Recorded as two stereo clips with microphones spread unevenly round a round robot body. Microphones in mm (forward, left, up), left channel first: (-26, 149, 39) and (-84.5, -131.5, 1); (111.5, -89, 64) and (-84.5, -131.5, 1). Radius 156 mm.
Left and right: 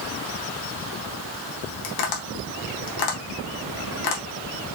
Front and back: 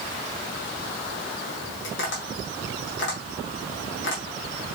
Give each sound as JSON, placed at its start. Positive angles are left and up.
{"t": 1.8, "sound": "tapping", "azimuth_deg": 65, "distance_m": 1.2}